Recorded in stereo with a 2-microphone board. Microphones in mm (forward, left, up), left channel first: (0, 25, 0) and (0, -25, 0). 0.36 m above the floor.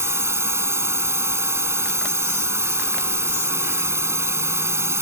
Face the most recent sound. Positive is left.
turn(degrees=-65)  # may be behind; listen again after turning